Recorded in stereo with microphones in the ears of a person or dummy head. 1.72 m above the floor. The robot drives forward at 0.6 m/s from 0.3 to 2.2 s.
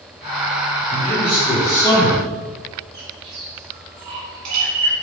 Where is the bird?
55° right (ahead or behind), 1.3 m.